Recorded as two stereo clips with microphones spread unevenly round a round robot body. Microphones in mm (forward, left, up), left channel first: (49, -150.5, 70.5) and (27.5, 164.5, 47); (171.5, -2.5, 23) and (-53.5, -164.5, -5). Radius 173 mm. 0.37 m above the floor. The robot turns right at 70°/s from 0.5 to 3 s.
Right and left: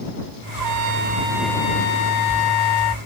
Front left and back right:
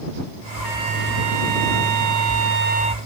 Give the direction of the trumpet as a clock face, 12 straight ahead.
8 o'clock.